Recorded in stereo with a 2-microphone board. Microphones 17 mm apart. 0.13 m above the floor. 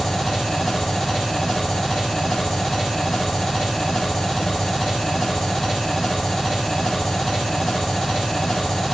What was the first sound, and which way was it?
An engine running, 40° left (ahead or behind).